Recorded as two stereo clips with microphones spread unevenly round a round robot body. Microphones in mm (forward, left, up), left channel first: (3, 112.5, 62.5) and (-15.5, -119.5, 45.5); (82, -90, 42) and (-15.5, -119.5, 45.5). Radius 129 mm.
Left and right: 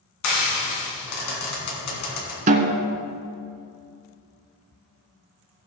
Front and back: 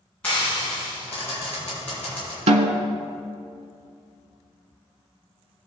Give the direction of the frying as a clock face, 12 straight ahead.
9 o'clock.